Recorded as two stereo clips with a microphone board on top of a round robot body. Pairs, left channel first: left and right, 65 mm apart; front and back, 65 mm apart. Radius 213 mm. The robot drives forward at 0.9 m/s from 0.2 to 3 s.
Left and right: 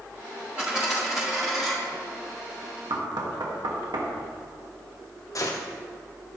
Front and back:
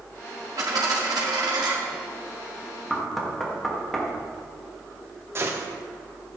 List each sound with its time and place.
0.6 s a dropped coin: 160° right, 0.6 m; by 1.7 s 175° right, 1.4 m
2.9 s knocking: 85° right, 1.9 m
5.3 s a gunshot: 125° left, 1.2 m